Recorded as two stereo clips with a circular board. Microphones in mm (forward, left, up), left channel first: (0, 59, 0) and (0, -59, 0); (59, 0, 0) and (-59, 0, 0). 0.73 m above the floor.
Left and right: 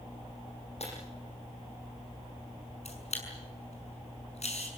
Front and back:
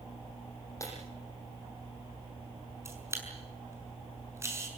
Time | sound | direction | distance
0.8 | breaking glass | 65° left | 9 m
2.9 | a camera shutter | 115° left | 5.5 m